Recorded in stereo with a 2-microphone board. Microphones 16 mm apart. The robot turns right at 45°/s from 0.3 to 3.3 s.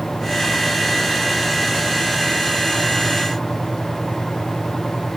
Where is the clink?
No clink in this recording.